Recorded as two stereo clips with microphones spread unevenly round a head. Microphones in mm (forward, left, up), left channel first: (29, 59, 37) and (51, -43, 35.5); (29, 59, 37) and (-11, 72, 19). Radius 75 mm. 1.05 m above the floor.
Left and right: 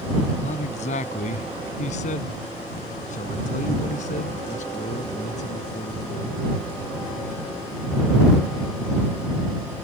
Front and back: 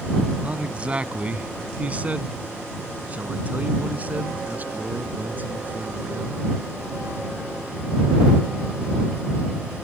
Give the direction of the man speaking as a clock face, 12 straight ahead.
9 o'clock.